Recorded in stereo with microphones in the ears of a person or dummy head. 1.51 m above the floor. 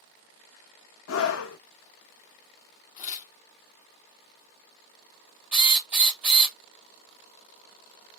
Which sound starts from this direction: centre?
A drill, at 5.5 s.